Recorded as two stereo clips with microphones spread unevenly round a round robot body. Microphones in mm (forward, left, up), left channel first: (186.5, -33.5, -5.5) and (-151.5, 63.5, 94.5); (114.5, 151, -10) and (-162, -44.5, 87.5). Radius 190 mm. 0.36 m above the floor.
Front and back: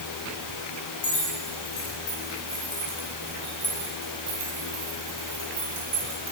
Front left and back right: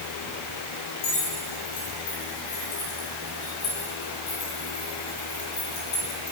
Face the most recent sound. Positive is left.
turn(degrees=95)